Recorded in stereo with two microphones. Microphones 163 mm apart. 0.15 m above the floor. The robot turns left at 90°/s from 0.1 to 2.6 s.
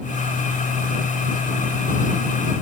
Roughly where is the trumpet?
I don't hear a trumpet.